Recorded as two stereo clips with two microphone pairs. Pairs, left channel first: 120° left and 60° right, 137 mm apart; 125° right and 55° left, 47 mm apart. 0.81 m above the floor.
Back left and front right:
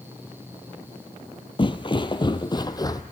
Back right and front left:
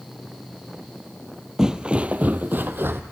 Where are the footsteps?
130° left, 0.9 m; by 3.0 s 65° left, 1.3 m.